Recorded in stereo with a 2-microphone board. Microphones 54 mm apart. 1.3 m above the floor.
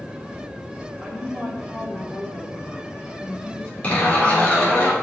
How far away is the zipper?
About 3 m.